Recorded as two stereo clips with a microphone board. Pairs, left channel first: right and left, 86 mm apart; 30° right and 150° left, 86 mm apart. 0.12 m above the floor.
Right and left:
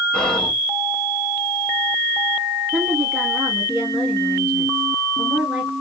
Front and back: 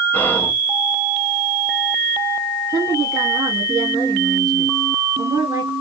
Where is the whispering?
20° right, 1.1 m.